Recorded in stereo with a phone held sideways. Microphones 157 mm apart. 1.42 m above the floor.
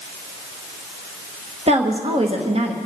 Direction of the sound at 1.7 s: 40° right (ahead or behind).